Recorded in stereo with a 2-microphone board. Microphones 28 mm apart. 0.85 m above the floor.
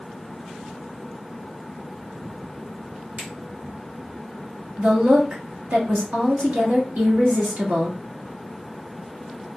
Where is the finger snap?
65° right (ahead or behind), 2.5 m.